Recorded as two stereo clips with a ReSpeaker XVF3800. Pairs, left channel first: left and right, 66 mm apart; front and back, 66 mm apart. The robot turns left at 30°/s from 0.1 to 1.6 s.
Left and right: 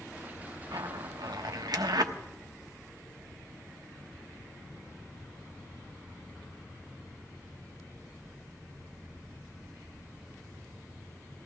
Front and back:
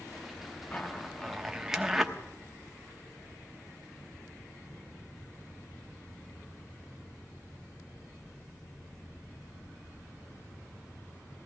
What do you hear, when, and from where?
0.7 s a zipper: 70° right, 0.9 m; by 2.1 s 95° right, 0.9 m